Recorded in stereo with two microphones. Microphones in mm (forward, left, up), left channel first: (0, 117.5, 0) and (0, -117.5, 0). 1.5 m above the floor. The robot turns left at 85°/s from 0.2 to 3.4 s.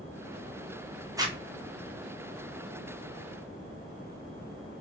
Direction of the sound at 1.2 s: 15° right (ahead or behind).